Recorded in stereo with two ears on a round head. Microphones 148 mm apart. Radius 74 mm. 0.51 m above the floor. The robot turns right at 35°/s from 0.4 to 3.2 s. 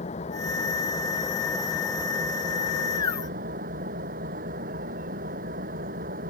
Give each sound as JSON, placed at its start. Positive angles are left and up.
{"t": 0.0, "sound": "an engine running", "azimuth_deg": 135}